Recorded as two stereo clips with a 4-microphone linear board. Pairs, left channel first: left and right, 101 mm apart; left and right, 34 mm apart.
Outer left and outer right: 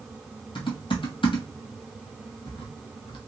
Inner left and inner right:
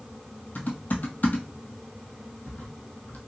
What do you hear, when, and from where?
0.6 s typing on a keyboard: 55° left (ahead or behind), 1.0 m